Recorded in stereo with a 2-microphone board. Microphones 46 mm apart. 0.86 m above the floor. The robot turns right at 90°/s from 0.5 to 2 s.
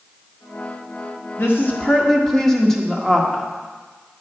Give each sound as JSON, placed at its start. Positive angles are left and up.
{"t": 1.4, "sound": "a woman speaking", "azimuth_deg": 120, "distance_m": 1.5}